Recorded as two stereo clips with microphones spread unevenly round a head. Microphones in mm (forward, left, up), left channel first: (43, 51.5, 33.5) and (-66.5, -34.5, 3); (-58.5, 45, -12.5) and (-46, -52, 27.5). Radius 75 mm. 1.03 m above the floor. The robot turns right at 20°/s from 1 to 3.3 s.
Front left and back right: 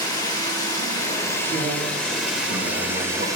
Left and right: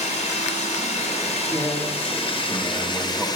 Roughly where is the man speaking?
Behind.